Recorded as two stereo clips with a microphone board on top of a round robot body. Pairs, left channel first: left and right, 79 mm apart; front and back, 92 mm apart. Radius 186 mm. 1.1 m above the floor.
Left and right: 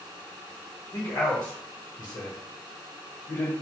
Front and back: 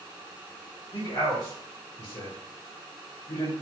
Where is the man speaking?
50° left, 0.9 m.